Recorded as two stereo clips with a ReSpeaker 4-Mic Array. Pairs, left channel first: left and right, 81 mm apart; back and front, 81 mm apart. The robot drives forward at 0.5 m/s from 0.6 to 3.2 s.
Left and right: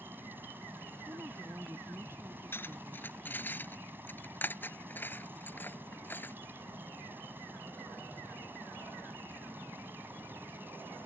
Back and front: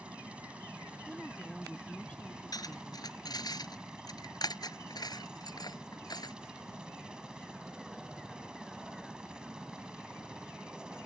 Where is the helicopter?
60° right; by 11.1 s 65° right.